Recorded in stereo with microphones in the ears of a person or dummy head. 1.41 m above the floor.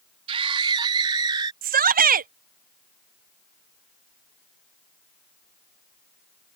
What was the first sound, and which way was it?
A scream, 35° right (ahead or behind).